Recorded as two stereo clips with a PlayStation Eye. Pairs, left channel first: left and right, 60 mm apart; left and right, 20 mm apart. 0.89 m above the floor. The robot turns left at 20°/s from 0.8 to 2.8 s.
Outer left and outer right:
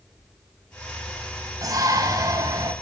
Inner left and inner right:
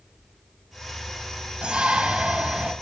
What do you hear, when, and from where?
1.6 s a shout: 85° right, 4.5 m; by 2.7 s 75° right (ahead or behind), 4.5 m